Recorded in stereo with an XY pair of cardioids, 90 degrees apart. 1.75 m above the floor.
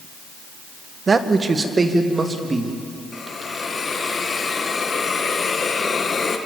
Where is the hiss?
45° left, 2 m.